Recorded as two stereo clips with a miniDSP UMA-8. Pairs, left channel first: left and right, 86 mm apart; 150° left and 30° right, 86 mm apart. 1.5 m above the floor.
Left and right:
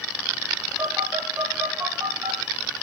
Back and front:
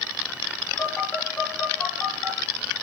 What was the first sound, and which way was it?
A phone buzzing, 145° right.